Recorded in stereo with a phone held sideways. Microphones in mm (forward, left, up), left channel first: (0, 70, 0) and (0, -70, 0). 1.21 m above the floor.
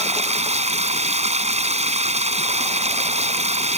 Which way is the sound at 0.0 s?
50° right (ahead or behind).